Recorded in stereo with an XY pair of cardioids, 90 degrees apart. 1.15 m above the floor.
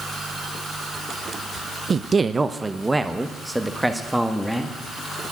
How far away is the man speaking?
About 0.6 m.